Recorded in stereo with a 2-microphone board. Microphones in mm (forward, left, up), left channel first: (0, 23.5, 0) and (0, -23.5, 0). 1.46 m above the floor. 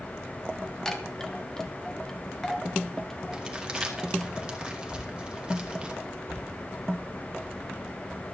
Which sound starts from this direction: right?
Crumpling, at 3.3 s.